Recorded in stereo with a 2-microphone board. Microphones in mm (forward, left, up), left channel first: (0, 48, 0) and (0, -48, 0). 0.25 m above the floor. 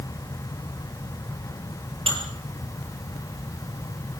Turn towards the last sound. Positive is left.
turn(degrees=-80)